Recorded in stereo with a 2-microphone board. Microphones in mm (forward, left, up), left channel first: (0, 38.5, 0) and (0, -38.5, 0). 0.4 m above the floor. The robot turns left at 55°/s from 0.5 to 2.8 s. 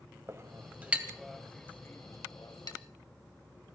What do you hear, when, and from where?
0.3 s a clink: 35° right (ahead or behind), 1.6 m; by 2.8 s 65° left (ahead or behind), 1.6 m